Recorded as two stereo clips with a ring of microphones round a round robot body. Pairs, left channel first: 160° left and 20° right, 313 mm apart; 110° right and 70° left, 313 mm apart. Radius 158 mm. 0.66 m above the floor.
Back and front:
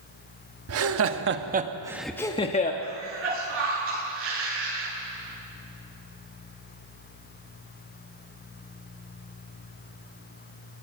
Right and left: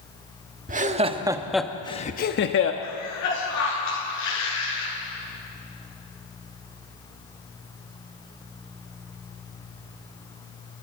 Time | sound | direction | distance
0.7 | laughter | 5° left | 1.5 m
2.8 | a cough | 75° right | 9.5 m